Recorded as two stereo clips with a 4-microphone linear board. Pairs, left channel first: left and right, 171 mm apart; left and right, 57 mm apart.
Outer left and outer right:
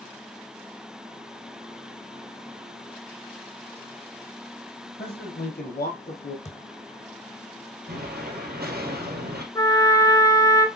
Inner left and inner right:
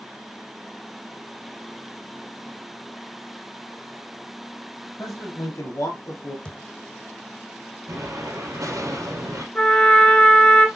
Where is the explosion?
65° right (ahead or behind), 3 m.